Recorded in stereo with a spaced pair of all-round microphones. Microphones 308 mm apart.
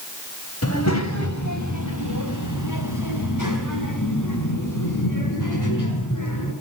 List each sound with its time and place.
0.6 s a child speaking: 50° left (ahead or behind), 3 m; by 6.5 s 75° left (ahead or behind), 8 m